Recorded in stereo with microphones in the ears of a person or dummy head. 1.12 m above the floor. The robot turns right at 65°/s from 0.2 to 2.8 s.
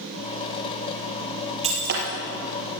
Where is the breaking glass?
145° right, 5 m; by 2.1 s 115° right, 5 m.